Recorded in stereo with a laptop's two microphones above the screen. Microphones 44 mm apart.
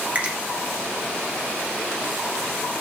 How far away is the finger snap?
About 0.9 m.